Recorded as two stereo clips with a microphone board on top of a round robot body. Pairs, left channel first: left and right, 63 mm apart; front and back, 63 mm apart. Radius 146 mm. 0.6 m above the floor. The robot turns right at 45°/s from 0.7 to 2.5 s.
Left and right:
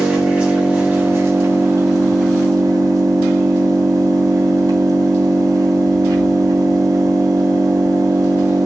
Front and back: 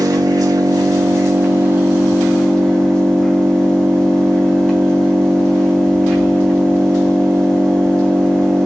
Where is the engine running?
160° right, 3.5 m; by 8.7 s 80° right, 3.5 m.